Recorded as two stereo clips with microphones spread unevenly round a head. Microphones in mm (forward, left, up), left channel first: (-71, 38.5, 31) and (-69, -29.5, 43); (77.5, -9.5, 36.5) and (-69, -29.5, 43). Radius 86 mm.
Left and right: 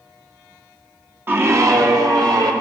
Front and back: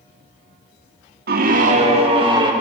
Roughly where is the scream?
Behind right.